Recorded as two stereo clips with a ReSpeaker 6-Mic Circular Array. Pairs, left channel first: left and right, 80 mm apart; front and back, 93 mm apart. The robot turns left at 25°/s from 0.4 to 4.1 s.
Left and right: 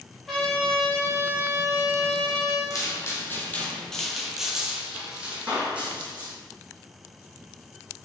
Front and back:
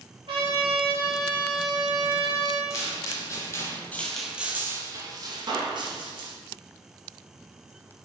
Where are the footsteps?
55° left, 1.0 m; by 6.3 s 160° right, 1.3 m.